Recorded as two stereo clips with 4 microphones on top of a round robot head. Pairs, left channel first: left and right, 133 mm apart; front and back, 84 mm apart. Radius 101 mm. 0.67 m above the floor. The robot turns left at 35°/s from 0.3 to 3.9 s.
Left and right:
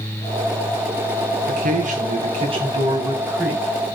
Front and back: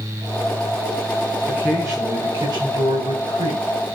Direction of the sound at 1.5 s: 100° right.